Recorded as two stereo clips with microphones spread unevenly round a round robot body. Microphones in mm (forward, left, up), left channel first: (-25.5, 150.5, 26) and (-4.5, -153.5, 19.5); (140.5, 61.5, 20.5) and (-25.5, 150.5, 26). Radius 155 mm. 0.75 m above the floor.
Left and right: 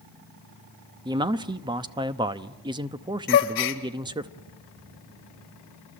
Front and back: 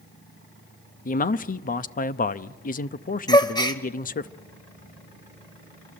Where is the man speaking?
15° right, 0.7 m.